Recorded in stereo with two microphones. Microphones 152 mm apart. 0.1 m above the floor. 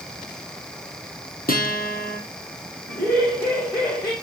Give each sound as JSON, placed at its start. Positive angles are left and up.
{"t": 1.5, "sound": "a guitar", "side_deg": 70, "distance_m": 1.7}
{"t": 2.9, "sound": "laughter", "side_deg": 25, "distance_m": 5.0}